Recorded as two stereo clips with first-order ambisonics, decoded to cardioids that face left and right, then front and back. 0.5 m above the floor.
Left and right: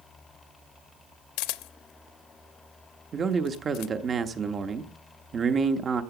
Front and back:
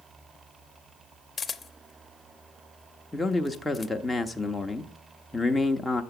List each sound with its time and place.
1.4 s a camera shutter: 75° left, 0.6 m
3.1 s a man speaking: 75° right, 0.7 m